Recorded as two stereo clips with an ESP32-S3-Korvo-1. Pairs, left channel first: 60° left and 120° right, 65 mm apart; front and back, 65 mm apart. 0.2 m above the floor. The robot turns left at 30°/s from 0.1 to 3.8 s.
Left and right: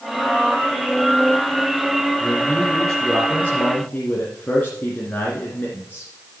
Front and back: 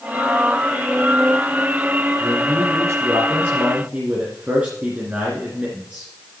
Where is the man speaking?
165° left, 2.5 m; by 6.1 s 120° left, 2.5 m.